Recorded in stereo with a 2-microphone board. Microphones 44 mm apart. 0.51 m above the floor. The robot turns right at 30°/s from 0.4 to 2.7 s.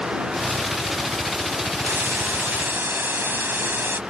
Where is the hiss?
80° right; by 4.0 s 60° right (ahead or behind).